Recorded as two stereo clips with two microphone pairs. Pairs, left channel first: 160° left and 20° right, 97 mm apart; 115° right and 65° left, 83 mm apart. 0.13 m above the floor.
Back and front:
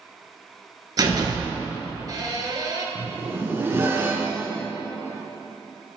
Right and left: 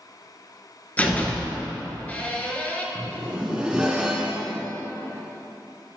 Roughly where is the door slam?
Ahead right.